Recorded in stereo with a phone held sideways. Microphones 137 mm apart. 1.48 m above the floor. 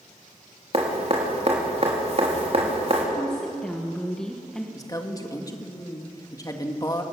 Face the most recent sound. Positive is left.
turn(degrees=25)  # may be behind; listen again after turning